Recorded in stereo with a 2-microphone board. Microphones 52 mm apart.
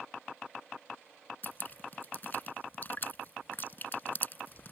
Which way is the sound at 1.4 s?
45° left (ahead or behind).